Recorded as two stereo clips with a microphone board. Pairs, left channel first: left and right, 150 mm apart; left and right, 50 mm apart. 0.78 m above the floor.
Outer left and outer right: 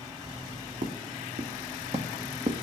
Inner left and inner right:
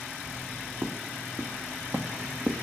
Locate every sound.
0.8 s footsteps: 65° right (ahead or behind), 1.9 m; by 2.6 s 35° right (ahead or behind), 1.5 m